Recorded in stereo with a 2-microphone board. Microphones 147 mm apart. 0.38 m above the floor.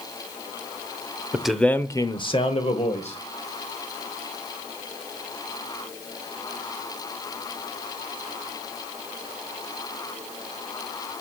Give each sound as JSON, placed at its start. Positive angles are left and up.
{"t": 1.3, "sound": "a man speaking", "side_deg": -5, "distance_m": 0.9}